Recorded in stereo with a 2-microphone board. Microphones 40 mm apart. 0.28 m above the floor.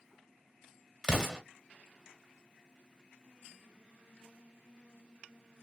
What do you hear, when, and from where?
1.0 s an explosion: 15° right (ahead or behind), 1.4 m